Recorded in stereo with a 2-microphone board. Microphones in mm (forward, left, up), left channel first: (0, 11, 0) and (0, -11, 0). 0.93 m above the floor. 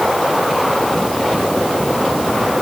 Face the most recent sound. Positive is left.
No sound to turn to.